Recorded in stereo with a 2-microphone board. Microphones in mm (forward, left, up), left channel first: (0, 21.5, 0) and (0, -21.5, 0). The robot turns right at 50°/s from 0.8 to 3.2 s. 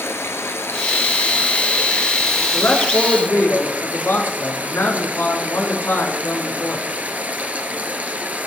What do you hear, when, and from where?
0.0 s running water: 95° left, 1.7 m; by 8.5 s 145° right, 1.7 m
2.5 s a man speaking: 55° left, 4.5 m; by 6.8 s 90° left, 4.5 m